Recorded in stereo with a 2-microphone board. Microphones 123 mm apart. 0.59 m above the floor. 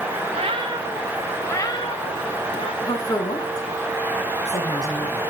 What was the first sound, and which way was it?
A cat meowing, 55° right (ahead or behind).